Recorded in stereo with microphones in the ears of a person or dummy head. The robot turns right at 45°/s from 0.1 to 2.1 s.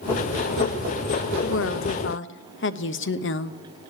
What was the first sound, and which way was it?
A woman speaking, 80° left.